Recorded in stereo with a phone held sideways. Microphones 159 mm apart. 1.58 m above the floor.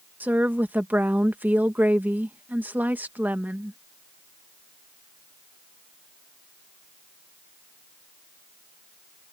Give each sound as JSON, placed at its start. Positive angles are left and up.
{"t": 0.2, "sound": "a woman speaking", "side_deg": -10}